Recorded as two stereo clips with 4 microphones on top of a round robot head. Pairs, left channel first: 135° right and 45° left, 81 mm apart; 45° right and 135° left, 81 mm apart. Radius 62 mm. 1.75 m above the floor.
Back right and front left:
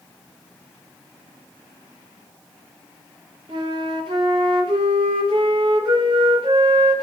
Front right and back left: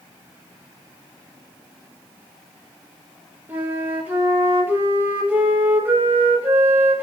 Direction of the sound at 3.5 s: 70° left.